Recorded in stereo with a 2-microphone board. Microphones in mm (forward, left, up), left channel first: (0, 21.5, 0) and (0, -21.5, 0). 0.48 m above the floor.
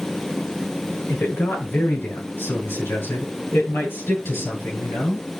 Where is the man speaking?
85° left, 6 m; by 5.2 s 75° left (ahead or behind), 8.5 m.